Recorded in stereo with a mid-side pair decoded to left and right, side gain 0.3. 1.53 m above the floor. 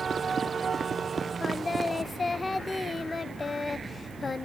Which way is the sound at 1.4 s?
40° left.